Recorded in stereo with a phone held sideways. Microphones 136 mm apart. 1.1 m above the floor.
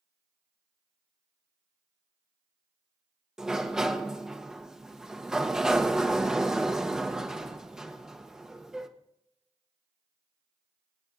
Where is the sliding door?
5° right (ahead or behind), 0.9 m.